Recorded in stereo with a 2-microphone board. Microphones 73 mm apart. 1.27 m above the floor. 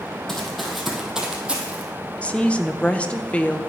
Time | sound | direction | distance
0.3 | running footsteps | 5° left (ahead or behind) | 2.5 m
2.2 | a woman speaking | 15° left (ahead or behind) | 0.8 m